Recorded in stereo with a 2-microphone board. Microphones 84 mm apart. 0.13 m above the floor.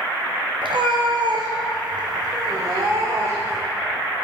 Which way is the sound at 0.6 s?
80° right.